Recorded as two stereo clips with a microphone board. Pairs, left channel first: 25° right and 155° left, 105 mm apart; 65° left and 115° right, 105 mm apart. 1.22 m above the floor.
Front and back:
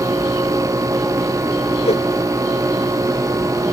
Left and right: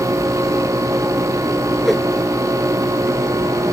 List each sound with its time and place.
1.9 s a whoosh: 25° right